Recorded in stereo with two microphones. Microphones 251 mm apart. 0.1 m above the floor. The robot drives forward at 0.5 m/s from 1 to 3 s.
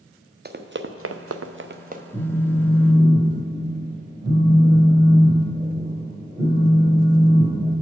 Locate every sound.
0.5 s running footsteps: 40° right (ahead or behind), 0.7 m; by 2.0 s 30° right (ahead or behind), 0.9 m
2.1 s a phone buzzing: 10° right (ahead or behind), 1.2 m